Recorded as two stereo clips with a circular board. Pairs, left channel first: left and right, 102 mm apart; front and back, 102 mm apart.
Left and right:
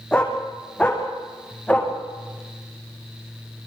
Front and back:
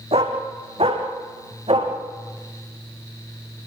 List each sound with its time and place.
0.1 s a dog barking: 170° left, 5 m